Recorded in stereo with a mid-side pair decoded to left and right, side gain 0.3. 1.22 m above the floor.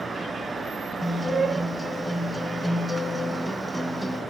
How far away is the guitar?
About 3.5 m.